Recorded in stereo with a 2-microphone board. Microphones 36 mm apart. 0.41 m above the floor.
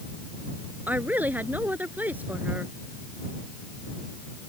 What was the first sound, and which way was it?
A woman speaking, 55° right (ahead or behind).